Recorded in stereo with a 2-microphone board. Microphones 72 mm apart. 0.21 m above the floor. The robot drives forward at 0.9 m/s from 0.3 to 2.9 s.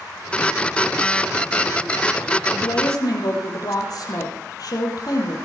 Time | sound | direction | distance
2.5 | a woman speaking | 70° left (ahead or behind) | 5.5 m